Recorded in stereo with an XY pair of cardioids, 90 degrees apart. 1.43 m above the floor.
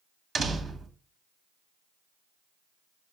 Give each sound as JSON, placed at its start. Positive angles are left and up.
{"t": 0.3, "sound": "a door slam", "azimuth_deg": -60, "distance_m": 1.3}